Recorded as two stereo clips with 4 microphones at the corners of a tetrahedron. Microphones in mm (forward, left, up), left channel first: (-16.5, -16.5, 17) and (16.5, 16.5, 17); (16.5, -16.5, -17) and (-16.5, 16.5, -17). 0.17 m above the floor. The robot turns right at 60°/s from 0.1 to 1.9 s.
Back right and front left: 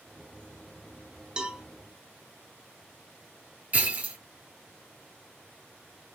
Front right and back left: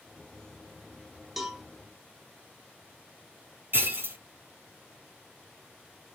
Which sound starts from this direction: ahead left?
A cowbell, at 1.4 s.